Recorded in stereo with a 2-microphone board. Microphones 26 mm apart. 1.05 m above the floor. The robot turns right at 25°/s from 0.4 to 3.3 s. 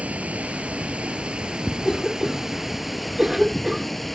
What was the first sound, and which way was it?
Running water, 70° right.